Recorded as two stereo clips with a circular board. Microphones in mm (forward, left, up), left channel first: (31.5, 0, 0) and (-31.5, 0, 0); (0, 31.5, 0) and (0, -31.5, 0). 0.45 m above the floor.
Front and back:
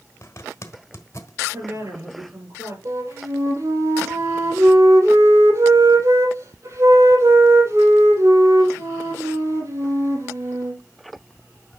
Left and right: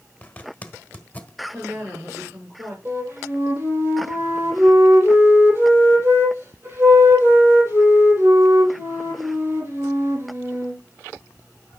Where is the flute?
140° right, 6 m.